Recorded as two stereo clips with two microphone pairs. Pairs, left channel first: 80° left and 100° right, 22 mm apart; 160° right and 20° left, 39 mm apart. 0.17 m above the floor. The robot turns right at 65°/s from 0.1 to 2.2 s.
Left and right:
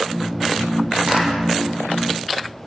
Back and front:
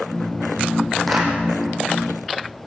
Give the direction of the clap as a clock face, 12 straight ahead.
3 o'clock.